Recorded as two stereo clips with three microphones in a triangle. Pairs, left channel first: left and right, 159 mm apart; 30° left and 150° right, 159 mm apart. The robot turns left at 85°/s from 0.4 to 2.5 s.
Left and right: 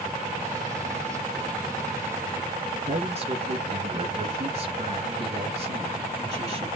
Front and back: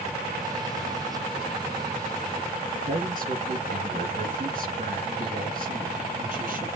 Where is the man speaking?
125° right, 2.5 m.